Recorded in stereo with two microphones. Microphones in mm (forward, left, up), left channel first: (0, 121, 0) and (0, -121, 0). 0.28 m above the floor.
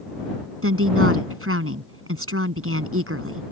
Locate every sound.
0.6 s a woman speaking: 65° right (ahead or behind)